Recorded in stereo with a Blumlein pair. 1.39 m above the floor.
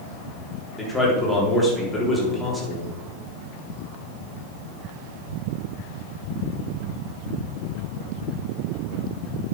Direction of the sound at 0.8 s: 5° left.